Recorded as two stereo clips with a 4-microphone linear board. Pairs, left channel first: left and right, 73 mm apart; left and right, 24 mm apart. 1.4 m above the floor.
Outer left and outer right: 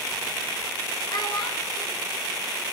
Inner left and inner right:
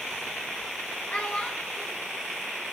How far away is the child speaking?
About 5 m.